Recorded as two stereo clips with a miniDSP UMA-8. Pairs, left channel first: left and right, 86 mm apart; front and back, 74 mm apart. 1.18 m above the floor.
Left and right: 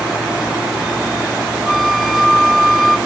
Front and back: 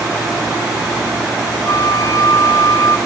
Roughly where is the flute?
Ahead.